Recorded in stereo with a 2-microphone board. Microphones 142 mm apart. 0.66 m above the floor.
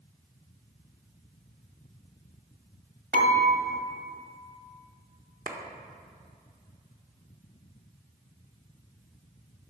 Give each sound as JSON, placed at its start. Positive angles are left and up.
{"t": 3.1, "sound": "dishes clattering", "side_deg": -75, "distance_m": 2.5}
{"t": 5.5, "sound": "a clap", "side_deg": -65, "distance_m": 1.1}